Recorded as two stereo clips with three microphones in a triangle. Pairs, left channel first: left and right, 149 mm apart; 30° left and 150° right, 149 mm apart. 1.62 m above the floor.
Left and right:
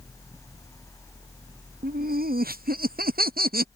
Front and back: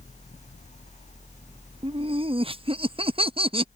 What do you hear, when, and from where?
1.8 s laughter: 95° right